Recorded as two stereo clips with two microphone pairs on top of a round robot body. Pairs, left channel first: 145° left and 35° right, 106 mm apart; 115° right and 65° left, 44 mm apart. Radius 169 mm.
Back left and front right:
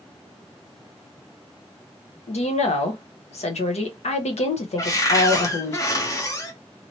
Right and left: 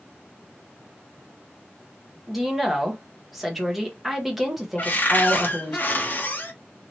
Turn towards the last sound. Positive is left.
turn(degrees=-155)